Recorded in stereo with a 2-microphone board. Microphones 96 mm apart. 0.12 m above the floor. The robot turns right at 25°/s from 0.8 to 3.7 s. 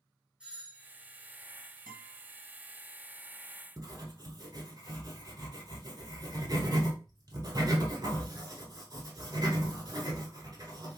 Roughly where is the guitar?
Centre.